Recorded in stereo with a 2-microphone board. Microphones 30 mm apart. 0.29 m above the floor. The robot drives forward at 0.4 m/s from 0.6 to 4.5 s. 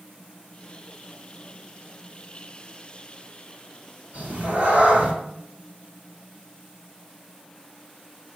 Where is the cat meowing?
50° right (ahead or behind), 1.6 m; by 5.1 s 45° right (ahead or behind), 1.7 m.